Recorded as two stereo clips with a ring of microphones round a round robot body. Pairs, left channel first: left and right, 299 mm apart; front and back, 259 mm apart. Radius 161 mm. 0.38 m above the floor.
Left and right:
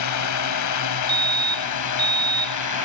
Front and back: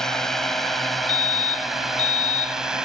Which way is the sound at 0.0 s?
90° left.